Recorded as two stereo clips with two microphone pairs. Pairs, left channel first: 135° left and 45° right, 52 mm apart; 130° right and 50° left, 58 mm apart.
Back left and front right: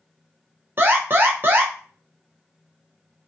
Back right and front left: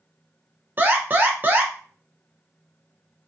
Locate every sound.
0.8 s an alarm: straight ahead, 0.6 m